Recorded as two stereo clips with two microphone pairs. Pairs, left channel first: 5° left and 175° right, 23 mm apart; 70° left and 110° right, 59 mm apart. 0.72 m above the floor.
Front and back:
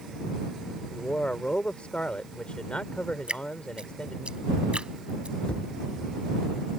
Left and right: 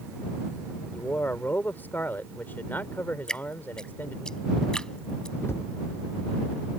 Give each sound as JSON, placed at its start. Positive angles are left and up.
{"t": 0.9, "sound": "a man speaking", "azimuth_deg": 20}
{"t": 3.3, "sound": "dripping", "azimuth_deg": 145}
{"t": 5.4, "sound": "a cupboard door", "azimuth_deg": 25}